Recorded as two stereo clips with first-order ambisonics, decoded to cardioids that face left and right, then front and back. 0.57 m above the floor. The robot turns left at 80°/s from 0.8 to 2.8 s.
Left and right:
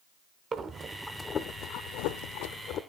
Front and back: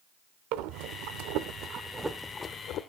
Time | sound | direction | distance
0.5 | breathing | 160° right | 0.7 m